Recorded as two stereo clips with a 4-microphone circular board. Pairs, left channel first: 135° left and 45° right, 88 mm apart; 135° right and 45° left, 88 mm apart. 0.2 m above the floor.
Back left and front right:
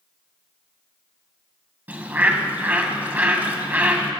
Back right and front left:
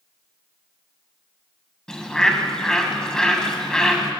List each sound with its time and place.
1.9 s a bird: 65° right, 1.4 m